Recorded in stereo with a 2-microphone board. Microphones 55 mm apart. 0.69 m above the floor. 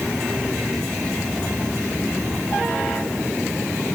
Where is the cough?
No cough in this recording.